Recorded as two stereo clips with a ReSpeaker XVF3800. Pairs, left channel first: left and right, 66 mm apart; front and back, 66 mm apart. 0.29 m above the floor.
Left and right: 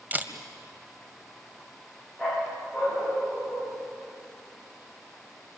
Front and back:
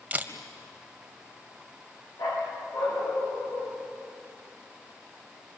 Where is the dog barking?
Straight ahead, 9 m.